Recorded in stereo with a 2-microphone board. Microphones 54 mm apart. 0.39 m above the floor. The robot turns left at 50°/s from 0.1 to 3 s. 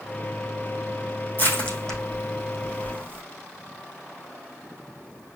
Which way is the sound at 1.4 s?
40° left (ahead or behind).